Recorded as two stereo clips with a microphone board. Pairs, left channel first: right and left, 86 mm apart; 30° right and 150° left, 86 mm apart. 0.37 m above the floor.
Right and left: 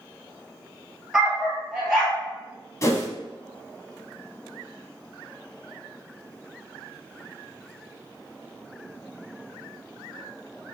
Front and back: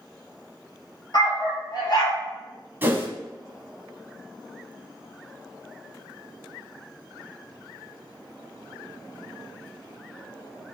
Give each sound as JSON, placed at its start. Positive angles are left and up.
{"t": 1.1, "sound": "a dog barking", "azimuth_deg": 5, "distance_m": 1.6}
{"t": 2.8, "sound": "a whoosh", "azimuth_deg": -145, "distance_m": 0.7}